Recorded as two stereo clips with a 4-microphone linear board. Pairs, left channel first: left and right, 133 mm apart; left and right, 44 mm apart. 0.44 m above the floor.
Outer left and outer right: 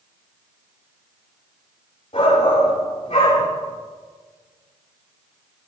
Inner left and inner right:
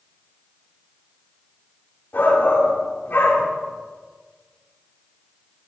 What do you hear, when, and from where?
2.1 s a shout: 45° left (ahead or behind), 7 m